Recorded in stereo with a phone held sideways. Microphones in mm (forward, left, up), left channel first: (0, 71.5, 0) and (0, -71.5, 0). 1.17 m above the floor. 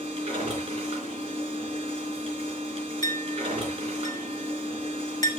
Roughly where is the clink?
Left.